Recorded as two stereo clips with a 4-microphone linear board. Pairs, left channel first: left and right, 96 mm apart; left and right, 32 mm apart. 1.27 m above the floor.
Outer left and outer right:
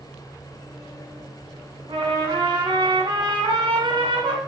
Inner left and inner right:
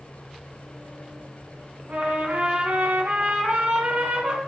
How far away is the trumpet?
About 2 m.